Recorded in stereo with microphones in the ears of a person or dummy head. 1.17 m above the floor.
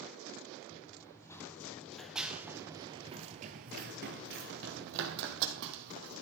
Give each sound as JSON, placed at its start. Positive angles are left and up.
{"t": 0.7, "sound": "running footsteps", "side_deg": 20, "distance_m": 3.0}